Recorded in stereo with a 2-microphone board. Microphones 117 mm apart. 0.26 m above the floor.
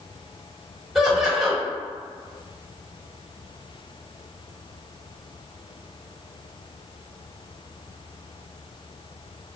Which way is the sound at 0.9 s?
5° right (ahead or behind).